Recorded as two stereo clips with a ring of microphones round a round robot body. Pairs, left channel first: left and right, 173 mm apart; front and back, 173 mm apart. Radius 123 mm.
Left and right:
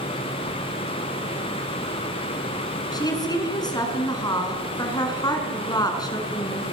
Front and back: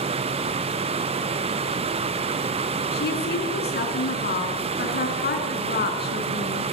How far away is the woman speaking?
About 5 m.